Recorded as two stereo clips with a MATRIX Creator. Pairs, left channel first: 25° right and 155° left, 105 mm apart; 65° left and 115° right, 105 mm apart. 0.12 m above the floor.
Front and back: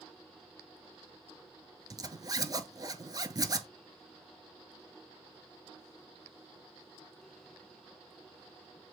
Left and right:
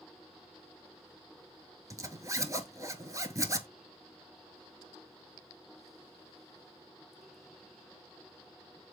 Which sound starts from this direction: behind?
A zipper, at 1.9 s.